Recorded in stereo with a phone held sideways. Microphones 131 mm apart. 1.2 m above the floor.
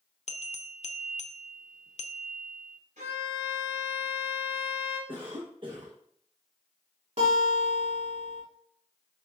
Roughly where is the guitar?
Right.